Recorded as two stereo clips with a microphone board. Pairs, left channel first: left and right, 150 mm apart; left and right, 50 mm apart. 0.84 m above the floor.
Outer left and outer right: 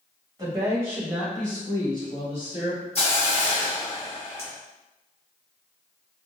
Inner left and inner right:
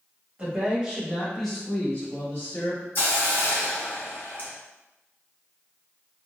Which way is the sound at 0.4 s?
30° right (ahead or behind).